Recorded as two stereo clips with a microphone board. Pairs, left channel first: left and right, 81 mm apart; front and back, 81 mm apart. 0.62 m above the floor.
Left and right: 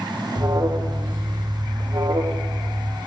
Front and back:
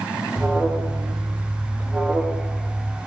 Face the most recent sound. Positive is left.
turn(degrees=-110)